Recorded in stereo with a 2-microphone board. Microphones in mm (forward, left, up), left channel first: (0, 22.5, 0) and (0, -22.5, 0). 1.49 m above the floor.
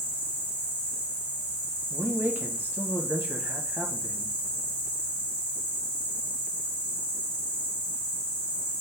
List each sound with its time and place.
0.0 s an insect: 10° right (ahead or behind), 2 m
1.9 s a man speaking: 45° right (ahead or behind), 1.3 m